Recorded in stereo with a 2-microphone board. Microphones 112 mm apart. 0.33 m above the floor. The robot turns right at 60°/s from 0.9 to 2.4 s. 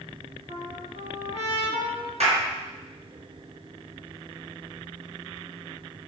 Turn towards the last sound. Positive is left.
turn(degrees=-70)  # may be behind; listen again after turning